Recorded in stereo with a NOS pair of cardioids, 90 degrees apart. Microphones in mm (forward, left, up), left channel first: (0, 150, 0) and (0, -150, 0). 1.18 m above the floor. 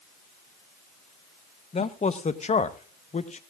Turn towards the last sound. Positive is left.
turn(degrees=25)